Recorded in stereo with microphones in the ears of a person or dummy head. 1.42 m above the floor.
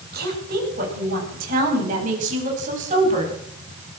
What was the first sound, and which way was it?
A woman speaking, 55° right (ahead or behind).